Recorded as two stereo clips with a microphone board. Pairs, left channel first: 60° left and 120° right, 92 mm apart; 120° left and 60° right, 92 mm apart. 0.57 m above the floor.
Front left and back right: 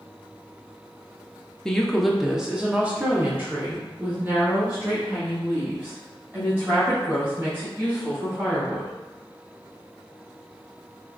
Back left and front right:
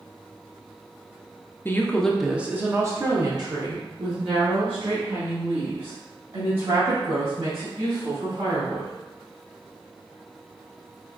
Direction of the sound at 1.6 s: 135° left.